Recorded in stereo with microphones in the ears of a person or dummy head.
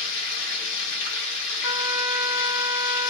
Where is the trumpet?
85° left, 1.1 m.